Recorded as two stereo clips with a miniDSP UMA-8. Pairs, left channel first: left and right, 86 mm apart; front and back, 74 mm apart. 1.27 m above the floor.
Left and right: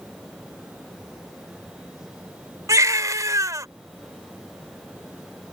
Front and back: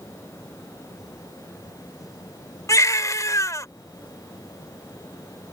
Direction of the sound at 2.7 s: 40° right.